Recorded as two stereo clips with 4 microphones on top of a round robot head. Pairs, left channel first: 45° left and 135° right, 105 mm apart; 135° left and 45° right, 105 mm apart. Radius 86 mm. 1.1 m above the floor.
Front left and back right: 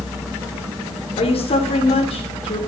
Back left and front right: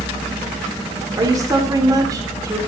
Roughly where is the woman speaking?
Ahead.